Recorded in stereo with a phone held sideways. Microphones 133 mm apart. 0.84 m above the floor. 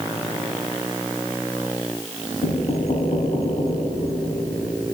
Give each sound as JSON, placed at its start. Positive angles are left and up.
{"t": 2.4, "sound": "knocking", "side_deg": 60, "distance_m": 4.5}